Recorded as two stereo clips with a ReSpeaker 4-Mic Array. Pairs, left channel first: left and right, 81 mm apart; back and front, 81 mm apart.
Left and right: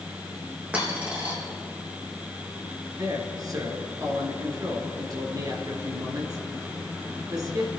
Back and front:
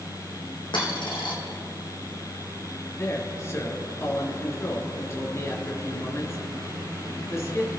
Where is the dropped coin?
165° right, 4.5 m.